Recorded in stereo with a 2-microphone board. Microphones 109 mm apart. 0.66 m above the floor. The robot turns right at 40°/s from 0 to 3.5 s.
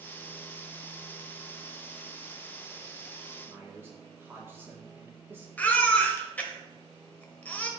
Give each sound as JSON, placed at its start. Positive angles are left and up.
{"t": 3.5, "sound": "a man speaking", "side_deg": -20, "distance_m": 1.7}
{"t": 5.6, "sound": "a baby crying", "side_deg": 15, "distance_m": 1.1}